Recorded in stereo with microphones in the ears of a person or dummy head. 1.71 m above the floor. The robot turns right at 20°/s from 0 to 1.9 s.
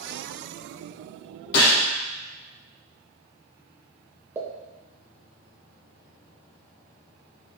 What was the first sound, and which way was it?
A gunshot, 20° left (ahead or behind).